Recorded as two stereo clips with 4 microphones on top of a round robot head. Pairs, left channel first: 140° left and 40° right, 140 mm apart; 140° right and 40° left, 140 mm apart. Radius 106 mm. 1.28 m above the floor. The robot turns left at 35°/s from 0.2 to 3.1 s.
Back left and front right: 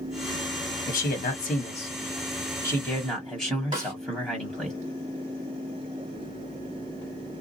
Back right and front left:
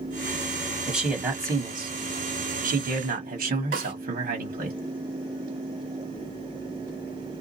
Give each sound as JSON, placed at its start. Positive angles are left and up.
{"t": 0.9, "sound": "a man speaking", "azimuth_deg": 130, "distance_m": 1.3}
{"t": 3.7, "sound": "a snare drum", "azimuth_deg": 20, "distance_m": 1.8}